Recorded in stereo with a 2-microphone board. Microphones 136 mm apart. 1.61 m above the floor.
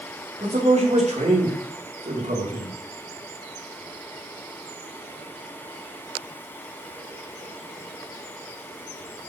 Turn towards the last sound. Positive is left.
turn(degrees=-85)